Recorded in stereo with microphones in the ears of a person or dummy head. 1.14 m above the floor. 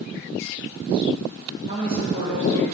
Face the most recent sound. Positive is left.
turn(degrees=-30)  # may be behind; listen again after turning